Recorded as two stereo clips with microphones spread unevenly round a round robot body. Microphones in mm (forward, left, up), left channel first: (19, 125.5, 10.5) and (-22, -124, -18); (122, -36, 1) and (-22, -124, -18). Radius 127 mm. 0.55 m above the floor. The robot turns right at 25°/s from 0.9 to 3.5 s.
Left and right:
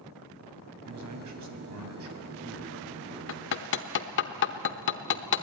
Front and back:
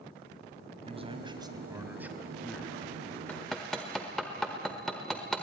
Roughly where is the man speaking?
Right.